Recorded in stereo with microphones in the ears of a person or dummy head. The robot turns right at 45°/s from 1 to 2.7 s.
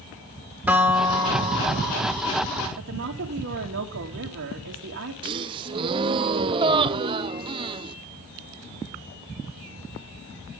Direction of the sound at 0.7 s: 170° right.